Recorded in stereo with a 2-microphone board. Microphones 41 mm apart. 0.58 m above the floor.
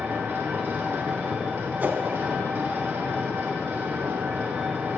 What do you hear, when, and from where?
0.0 s an engine running: 70° right (ahead or behind), 1.3 m
1.8 s a whoosh: 50° right (ahead or behind), 0.6 m